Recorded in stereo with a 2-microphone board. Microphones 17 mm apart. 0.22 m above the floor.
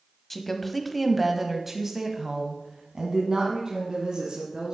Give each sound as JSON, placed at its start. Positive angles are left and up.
{"t": 0.3, "sound": "a woman speaking", "side_deg": 20, "distance_m": 1.3}